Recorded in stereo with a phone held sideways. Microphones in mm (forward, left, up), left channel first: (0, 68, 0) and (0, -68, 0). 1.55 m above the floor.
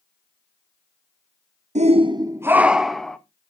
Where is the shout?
55° right (ahead or behind), 0.6 m; by 3.2 s 5° left (ahead or behind), 1.0 m.